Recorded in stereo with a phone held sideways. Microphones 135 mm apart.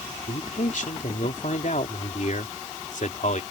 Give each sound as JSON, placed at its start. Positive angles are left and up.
{"t": 0.3, "sound": "a man speaking", "side_deg": 70}